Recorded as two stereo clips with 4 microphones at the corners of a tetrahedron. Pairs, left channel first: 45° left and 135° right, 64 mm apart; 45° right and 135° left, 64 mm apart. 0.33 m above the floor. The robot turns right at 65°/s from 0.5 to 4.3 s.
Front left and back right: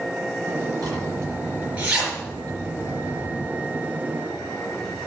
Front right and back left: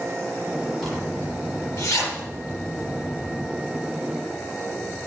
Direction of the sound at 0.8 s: 130° right.